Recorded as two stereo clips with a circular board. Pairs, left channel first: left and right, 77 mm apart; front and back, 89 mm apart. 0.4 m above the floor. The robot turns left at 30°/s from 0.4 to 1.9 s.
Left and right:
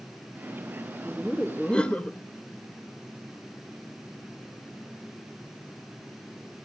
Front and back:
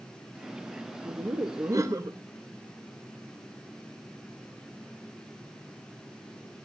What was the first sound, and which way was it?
Laughter, straight behind.